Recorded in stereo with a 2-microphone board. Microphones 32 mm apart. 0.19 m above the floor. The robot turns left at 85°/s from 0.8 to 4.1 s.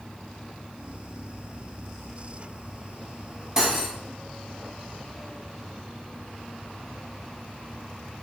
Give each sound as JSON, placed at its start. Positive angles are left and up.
{"t": 3.6, "sound": "cutlery clinking", "side_deg": -20, "distance_m": 0.6}